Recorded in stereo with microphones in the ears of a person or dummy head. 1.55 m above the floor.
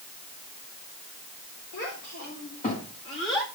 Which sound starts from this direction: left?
A child speaking, at 1.7 s.